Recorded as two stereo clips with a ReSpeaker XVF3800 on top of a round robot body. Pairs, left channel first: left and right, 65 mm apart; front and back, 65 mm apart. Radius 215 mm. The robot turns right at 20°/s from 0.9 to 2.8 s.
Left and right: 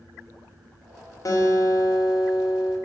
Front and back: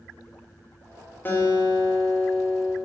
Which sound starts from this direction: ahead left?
A guitar, at 1.2 s.